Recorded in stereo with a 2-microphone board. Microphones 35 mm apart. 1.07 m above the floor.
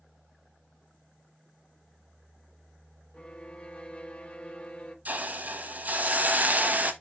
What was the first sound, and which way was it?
A violin, 35° left (ahead or behind).